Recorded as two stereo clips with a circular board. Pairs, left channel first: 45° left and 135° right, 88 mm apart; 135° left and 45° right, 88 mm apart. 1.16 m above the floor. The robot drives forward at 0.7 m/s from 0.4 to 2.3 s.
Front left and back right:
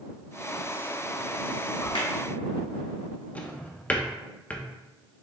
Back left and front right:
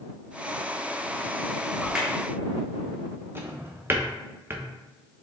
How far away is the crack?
About 1.2 m.